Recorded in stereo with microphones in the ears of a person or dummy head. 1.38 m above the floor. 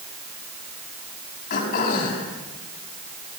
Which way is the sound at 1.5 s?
60° left (ahead or behind).